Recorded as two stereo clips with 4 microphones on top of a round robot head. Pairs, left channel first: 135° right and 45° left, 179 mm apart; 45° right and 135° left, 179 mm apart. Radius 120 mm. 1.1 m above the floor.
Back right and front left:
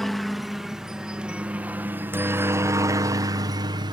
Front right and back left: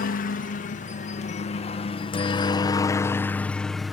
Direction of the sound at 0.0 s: 45° right.